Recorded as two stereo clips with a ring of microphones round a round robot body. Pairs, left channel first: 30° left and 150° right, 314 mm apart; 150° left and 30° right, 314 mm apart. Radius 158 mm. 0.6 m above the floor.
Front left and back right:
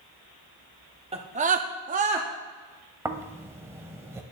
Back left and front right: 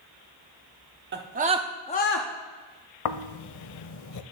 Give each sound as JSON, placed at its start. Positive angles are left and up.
{"t": 1.1, "sound": "a scream", "azimuth_deg": -80, "distance_m": 1.2}
{"t": 3.0, "sound": "snoring", "azimuth_deg": 130, "distance_m": 0.5}